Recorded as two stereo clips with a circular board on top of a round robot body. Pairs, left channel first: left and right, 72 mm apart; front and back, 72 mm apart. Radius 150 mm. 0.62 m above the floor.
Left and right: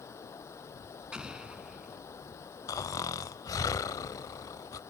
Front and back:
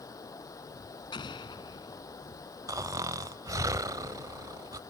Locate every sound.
0.0 s running water: 40° left
1.1 s an explosion: 10° right
2.7 s snoring: 135° left